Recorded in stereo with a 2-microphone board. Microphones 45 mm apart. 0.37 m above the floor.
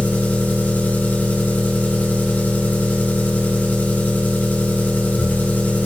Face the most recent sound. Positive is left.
turn(degrees=45)  # may be behind; listen again after turning